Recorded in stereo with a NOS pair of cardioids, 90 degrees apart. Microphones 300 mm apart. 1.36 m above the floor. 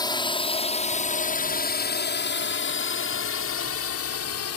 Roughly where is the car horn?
I don't hear a car horn.